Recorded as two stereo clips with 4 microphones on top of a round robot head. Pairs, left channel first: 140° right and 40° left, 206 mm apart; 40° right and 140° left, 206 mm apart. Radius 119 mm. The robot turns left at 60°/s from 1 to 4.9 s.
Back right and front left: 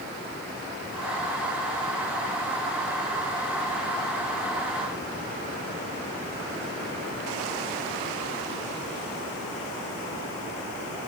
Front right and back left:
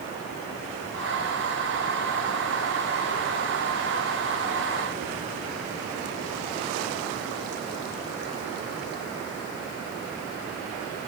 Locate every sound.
Only background noise.